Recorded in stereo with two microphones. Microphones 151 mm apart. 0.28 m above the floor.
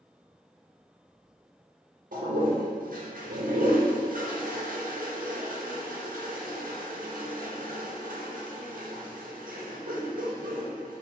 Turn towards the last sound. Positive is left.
turn(degrees=-70)  # may be behind; listen again after turning